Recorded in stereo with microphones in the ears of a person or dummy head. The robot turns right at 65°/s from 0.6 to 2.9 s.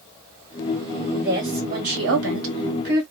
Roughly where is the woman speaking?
Behind.